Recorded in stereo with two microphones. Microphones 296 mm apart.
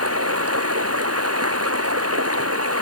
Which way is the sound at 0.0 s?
50° right (ahead or behind).